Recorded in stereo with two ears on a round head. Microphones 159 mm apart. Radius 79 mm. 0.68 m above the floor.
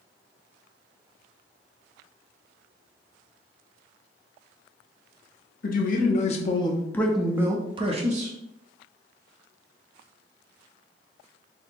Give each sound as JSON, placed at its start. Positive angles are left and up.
{"t": 5.6, "sound": "a man speaking", "side_deg": 55, "distance_m": 1.1}